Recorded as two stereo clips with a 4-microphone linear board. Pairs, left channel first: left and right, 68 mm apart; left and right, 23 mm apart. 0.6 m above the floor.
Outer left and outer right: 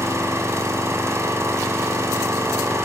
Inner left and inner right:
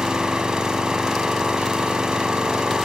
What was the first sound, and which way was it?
An engine running, 40° right (ahead or behind).